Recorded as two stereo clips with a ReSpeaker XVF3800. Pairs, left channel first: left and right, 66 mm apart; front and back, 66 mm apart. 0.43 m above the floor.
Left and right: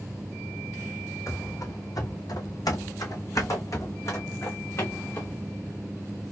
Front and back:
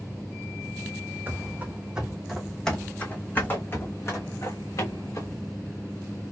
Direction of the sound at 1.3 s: 125° left.